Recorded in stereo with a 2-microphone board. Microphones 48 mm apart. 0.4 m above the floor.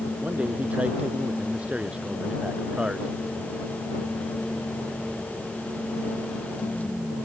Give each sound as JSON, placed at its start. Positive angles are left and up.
{"t": 0.2, "sound": "a man speaking", "side_deg": -30}